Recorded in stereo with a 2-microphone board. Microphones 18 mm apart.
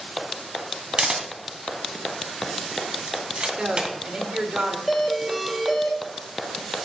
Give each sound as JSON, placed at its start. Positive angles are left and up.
{"t": 1.0, "sound": "a camera shutter", "side_deg": -55, "distance_m": 2.5}
{"t": 3.6, "sound": "a woman speaking", "side_deg": -60, "distance_m": 3.0}
{"t": 4.9, "sound": "a doorbell", "side_deg": -5, "distance_m": 3.0}